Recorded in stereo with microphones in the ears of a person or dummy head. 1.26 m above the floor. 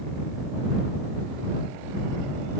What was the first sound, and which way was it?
Only background noise.